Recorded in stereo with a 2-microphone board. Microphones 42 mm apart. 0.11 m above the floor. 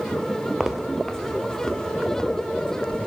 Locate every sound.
0.6 s footsteps: 10° right (ahead or behind), 1.9 m; by 3.1 s 25° left (ahead or behind), 4 m